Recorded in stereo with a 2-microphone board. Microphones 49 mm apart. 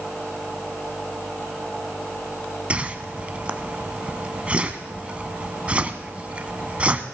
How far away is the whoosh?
About 0.7 m.